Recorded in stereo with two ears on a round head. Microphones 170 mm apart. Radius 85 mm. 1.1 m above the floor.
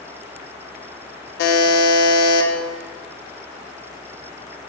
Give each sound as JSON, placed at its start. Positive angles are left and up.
{"t": 1.4, "sound": "a buzzer", "side_deg": 60, "distance_m": 0.5}